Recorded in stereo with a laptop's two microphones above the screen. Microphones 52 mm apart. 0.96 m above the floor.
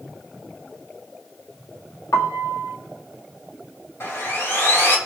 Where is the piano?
85° left, 1.2 m.